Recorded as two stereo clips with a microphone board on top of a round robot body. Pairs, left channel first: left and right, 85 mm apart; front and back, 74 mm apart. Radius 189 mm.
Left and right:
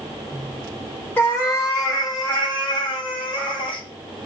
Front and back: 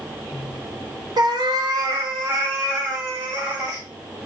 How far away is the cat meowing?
About 1.2 m.